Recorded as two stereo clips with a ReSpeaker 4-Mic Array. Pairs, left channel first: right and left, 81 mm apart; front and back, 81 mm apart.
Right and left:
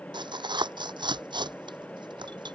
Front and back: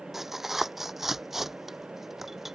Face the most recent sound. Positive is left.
turn(degrees=95)